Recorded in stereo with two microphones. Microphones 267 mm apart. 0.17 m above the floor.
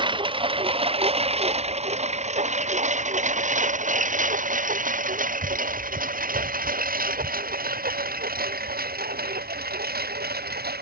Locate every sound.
0.0 s a lawn mower: 20° right (ahead or behind); by 10.8 s 35° right (ahead or behind)